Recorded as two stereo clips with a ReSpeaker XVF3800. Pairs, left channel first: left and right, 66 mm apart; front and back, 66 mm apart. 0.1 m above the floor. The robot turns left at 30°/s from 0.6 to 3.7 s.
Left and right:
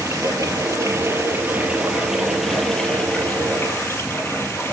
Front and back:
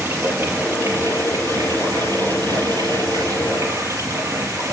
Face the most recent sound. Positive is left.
turn(degrees=145)